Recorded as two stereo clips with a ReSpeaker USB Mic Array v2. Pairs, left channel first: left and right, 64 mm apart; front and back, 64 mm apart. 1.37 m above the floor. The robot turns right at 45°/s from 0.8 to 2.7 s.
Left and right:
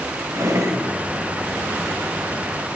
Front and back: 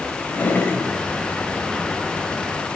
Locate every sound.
0.3 s a drawer: 60° right, 3 m